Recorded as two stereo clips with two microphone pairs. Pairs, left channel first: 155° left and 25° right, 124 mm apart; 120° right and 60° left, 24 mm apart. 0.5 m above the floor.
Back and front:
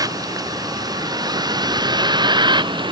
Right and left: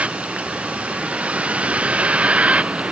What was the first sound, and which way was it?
A vehicle, 35° left.